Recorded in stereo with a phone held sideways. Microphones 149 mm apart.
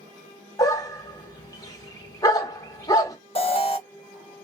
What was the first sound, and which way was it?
A dog barking, 25° left (ahead or behind).